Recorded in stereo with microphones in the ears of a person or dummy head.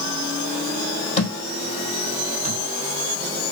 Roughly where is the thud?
Left.